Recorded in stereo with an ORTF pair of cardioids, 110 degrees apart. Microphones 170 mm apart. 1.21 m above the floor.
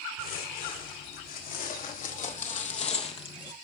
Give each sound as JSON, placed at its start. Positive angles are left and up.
{"t": 0.2, "sound": "footsteps", "azimuth_deg": 65, "distance_m": 5.0}